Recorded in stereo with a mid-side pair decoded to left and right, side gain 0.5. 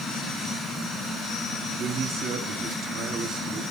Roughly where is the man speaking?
Ahead right.